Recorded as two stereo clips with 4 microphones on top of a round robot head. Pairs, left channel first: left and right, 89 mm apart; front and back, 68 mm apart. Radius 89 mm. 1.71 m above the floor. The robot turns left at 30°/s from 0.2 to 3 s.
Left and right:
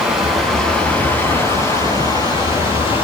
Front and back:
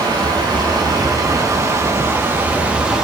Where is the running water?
Straight behind, 9 m; by 3.0 s 100° left, 9 m.